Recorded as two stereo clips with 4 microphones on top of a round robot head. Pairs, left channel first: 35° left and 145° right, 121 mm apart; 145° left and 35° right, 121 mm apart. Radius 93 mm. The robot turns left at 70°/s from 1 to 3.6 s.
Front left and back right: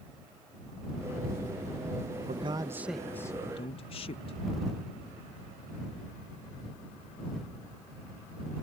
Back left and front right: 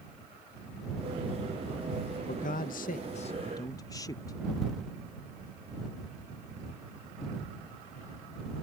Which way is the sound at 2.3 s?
175° left.